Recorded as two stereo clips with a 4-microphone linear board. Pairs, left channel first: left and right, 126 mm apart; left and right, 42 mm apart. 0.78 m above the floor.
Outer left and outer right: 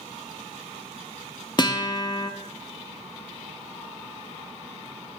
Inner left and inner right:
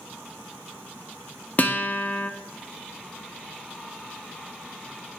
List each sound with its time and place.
1.6 s a guitar: 35° left (ahead or behind), 0.5 m